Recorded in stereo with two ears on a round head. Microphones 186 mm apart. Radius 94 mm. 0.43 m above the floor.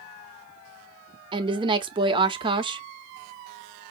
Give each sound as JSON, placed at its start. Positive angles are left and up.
{"t": 1.3, "sound": "a woman speaking", "side_deg": -20, "distance_m": 0.8}